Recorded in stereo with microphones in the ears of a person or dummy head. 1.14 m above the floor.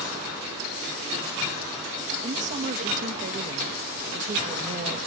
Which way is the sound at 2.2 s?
40° right (ahead or behind).